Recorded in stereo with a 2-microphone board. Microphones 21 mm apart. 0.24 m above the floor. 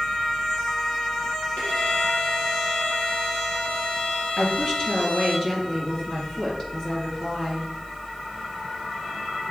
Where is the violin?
70° left (ahead or behind), 3 m.